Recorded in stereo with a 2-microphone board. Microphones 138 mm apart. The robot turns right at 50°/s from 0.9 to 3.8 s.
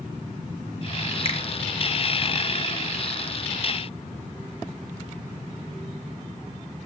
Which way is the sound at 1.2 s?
45° left (ahead or behind).